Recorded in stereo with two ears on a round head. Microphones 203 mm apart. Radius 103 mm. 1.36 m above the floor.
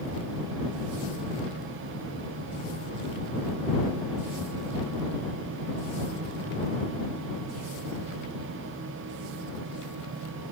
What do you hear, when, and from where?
Only background noise.